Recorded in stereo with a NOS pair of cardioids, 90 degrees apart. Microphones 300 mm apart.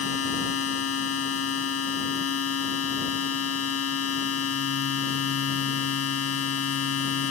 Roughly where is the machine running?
Ahead left.